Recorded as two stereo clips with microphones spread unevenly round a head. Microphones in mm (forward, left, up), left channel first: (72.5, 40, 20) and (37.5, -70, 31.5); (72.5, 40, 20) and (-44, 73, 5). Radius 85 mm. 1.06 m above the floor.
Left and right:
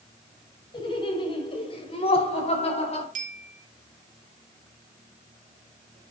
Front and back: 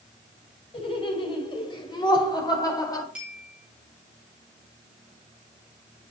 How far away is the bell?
About 2.5 m.